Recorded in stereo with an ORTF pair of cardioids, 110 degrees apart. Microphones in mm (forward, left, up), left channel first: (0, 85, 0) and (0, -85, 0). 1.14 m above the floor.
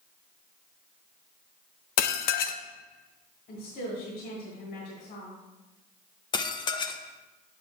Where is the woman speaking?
70° left, 2 m.